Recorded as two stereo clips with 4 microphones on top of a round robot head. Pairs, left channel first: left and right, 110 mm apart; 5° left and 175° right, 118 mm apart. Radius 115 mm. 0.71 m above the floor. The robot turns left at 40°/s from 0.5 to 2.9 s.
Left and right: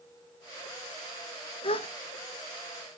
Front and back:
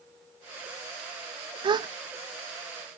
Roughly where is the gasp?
Behind left.